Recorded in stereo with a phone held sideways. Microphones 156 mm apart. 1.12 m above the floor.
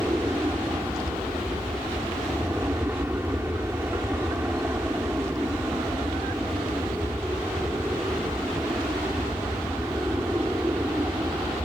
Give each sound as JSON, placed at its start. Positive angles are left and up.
{"t": 0.0, "sound": "an aircraft", "side_deg": -15}